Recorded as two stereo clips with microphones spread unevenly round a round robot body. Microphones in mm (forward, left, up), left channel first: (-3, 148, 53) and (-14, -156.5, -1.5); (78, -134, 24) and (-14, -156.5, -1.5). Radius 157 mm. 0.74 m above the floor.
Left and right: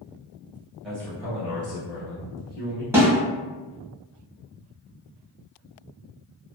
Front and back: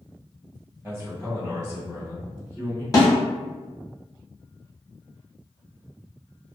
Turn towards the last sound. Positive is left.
turn(degrees=-35)